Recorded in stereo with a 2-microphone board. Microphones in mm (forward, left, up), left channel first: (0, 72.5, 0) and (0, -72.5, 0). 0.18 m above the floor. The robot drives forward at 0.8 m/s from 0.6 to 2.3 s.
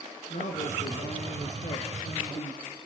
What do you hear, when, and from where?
0.3 s a man speaking: 60° left (ahead or behind), 3.5 m; by 2.6 s 50° left (ahead or behind), 3.5 m